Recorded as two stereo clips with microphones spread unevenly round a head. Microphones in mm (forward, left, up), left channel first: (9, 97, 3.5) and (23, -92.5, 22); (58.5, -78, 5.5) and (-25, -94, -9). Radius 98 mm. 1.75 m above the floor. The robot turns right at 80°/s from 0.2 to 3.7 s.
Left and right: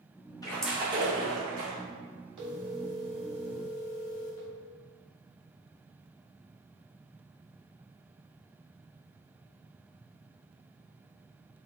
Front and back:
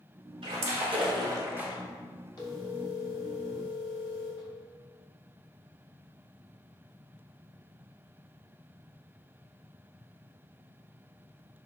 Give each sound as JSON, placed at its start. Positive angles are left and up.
{"t": 0.4, "sound": "a splash", "azimuth_deg": 170, "distance_m": 1.7}
{"t": 2.4, "sound": "a phone ringing", "azimuth_deg": -30, "distance_m": 3.0}